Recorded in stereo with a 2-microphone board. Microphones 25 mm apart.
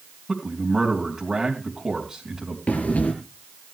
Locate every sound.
0.3 s a man speaking: 25° right (ahead or behind), 3.5 m
2.7 s breathing: 70° left (ahead or behind), 4.5 m